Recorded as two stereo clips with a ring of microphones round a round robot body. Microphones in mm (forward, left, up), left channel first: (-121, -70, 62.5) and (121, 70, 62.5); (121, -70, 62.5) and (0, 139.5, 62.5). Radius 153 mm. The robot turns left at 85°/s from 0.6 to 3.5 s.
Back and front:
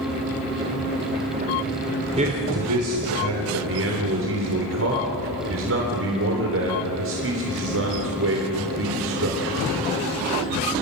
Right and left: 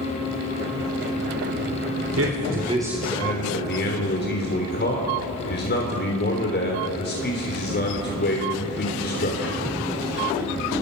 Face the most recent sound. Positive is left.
turn(degrees=-15)